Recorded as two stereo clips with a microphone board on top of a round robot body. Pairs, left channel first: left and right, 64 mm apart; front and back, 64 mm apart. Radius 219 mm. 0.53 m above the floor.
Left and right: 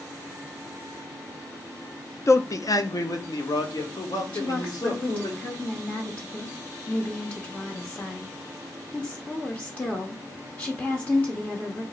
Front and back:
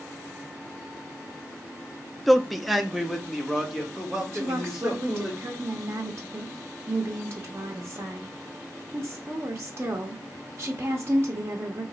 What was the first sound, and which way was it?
A man speaking, 90° left.